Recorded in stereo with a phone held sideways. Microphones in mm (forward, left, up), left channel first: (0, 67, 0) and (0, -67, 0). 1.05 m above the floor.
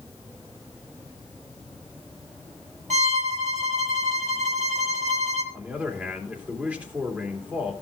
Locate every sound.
2.9 s a violin: 65° right (ahead or behind), 1.8 m
5.5 s a man speaking: 10° right (ahead or behind), 2.5 m